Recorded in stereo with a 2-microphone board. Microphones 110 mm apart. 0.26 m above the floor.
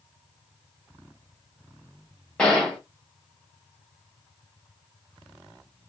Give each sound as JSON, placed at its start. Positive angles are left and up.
{"t": 2.4, "sound": "a gunshot", "side_deg": 5, "distance_m": 1.1}